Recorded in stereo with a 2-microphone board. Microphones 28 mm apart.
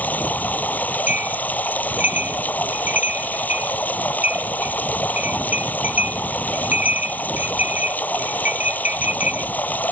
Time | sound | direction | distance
0.0 | running water | 85° left | ?
1.1 | a bell | 75° right (ahead or behind) | ?